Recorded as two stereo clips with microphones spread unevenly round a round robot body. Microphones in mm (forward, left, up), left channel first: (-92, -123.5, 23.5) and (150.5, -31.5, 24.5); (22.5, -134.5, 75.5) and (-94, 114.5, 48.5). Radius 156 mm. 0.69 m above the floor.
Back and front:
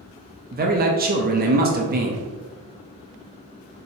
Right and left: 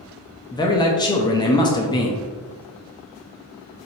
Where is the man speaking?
10° left, 0.7 m.